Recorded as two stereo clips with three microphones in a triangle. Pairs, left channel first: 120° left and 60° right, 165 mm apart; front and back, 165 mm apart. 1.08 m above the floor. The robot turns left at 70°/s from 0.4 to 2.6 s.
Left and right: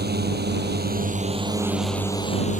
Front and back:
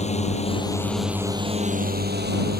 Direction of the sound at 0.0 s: 50° right.